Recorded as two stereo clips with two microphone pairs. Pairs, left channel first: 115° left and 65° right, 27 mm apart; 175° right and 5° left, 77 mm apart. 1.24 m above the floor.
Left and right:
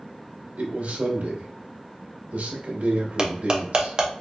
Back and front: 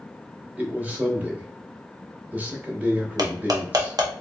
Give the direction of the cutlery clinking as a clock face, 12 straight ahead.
12 o'clock.